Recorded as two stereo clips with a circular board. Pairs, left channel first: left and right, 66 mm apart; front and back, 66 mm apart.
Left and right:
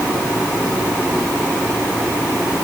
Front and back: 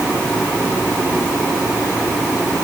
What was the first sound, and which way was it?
Only background noise.